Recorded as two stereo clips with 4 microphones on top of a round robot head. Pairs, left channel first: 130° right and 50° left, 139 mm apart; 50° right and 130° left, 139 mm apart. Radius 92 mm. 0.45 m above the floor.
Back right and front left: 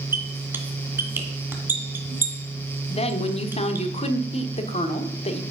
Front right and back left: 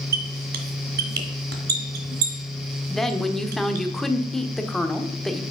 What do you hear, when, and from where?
0.1 s a squeak: 125° left, 1.7 m
2.9 s a woman speaking: 135° right, 1.3 m